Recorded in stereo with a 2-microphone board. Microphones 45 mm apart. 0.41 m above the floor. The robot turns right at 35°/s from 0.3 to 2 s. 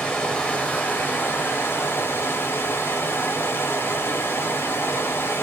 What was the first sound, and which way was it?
Running water, 25° left.